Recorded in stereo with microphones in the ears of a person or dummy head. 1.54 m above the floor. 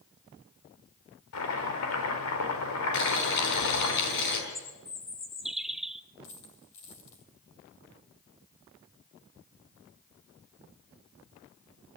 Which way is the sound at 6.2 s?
40° left (ahead or behind).